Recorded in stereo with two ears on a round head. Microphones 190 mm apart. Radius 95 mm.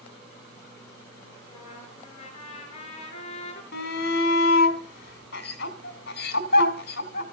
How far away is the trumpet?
About 5 m.